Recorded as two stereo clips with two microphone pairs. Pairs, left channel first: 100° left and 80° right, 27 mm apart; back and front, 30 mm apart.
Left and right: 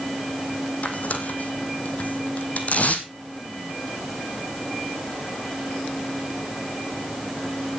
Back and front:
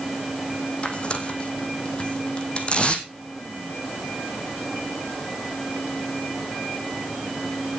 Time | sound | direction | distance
0.8 | tearing paper | 130° left | 1.8 m